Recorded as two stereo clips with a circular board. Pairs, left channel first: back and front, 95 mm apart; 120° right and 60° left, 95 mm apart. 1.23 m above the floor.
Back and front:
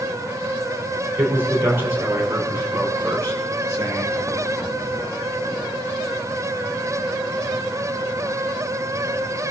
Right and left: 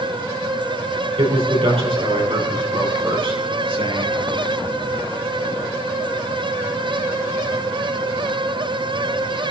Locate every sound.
1.2 s a man speaking: 65° left, 5.5 m; by 4.2 s 55° left, 7.5 m